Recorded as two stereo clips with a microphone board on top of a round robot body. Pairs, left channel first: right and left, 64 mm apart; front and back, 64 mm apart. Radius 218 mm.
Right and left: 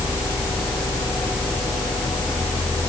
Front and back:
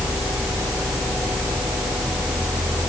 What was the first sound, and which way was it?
Only background noise.